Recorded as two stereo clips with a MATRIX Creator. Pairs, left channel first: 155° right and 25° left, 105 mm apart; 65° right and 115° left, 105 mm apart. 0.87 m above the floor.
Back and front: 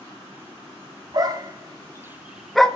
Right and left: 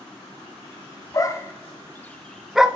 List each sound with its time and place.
1.1 s a dog barking: 20° right, 0.9 m; by 2.7 s 160° left, 0.5 m